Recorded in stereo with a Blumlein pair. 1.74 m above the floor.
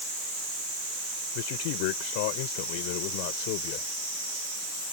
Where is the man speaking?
45° left.